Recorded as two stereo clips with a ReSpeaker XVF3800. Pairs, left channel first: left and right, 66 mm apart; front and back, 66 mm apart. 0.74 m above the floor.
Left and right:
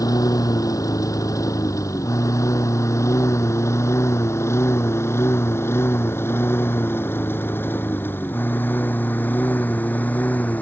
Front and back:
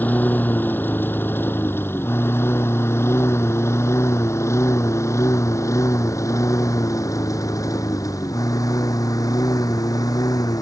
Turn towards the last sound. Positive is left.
turn(degrees=25)